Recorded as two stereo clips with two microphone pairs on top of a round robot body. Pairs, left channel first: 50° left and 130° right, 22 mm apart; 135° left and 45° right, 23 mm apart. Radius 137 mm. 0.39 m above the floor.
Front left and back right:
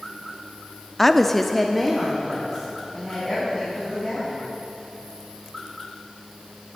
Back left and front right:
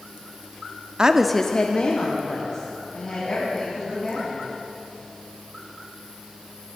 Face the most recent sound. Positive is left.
turn(degrees=145)